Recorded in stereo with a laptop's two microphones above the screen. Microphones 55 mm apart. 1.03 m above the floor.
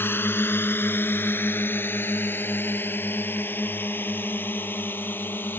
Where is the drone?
45° left (ahead or behind); by 5.6 s 40° left (ahead or behind).